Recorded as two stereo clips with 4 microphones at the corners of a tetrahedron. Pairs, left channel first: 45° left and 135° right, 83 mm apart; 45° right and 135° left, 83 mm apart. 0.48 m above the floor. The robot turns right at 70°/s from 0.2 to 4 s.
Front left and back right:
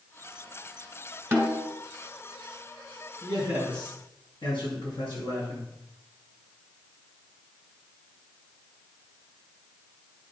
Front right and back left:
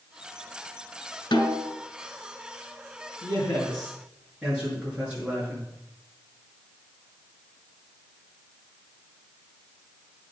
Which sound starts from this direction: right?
A snare drum, at 1.3 s.